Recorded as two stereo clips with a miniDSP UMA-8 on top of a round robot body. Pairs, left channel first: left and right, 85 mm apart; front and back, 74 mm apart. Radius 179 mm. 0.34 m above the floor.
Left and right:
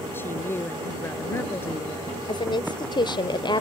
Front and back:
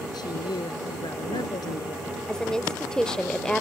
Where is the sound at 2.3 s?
80° left.